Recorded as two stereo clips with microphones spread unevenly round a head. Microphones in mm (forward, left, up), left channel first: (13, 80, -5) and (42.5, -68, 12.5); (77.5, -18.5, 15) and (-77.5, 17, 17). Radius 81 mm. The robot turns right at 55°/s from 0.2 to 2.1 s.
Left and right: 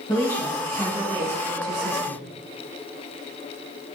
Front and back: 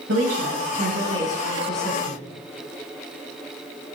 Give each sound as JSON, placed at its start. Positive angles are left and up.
{"t": 0.1, "sound": "a woman speaking", "azimuth_deg": 175, "distance_m": 5.0}